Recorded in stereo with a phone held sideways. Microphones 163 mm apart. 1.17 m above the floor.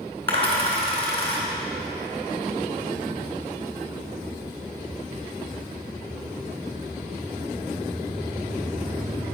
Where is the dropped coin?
35° left (ahead or behind), 4 m.